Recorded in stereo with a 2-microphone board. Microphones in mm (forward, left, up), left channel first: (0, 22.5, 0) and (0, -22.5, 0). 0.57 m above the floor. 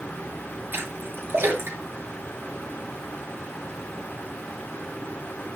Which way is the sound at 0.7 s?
55° right (ahead or behind).